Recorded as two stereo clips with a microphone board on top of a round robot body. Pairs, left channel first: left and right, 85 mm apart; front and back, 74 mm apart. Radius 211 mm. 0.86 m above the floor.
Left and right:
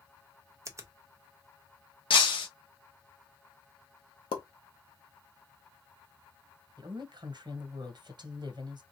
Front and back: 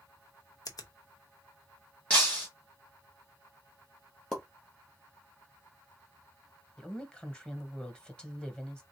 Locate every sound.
0.7 s a finger snap: 35° right, 0.7 m
2.1 s breaking glass: 75° left, 0.9 m
4.3 s a pop: 85° left, 0.8 m
6.8 s a woman speaking: 75° right, 1.4 m